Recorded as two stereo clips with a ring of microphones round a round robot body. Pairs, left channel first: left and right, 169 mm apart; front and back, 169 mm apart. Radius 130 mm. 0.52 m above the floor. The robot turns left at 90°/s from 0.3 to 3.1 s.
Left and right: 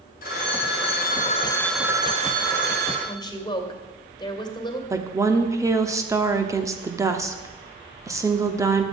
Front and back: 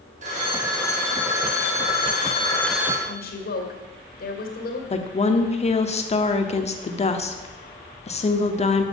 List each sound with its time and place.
0.2 s a phone ringing: 130° left, 1.7 m; by 3.0 s 110° right, 1.7 m
3.1 s a woman speaking: 30° left, 2.5 m; by 4.8 s 25° left, 2.5 m
4.9 s a woman speaking: 25° right, 1.1 m